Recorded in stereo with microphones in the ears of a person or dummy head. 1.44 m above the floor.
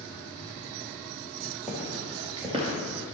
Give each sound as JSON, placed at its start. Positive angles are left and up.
{"t": 1.7, "sound": "footsteps", "side_deg": -5, "distance_m": 2.0}